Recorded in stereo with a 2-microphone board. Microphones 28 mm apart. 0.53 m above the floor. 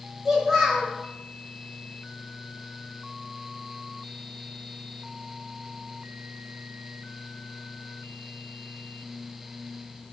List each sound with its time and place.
0.2 s a child speaking: 10° right (ahead or behind), 1.4 m